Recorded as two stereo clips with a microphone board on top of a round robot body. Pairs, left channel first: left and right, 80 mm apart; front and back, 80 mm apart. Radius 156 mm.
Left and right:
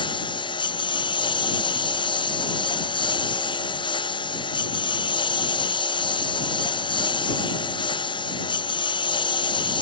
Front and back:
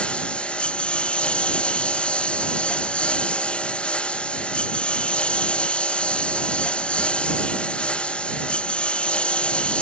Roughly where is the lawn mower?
Left.